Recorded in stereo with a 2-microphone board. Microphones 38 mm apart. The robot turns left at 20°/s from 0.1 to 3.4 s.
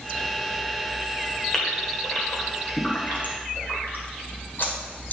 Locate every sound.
1.5 s a gasp: 20° left (ahead or behind), 2 m; by 5.1 s 60° left (ahead or behind), 2 m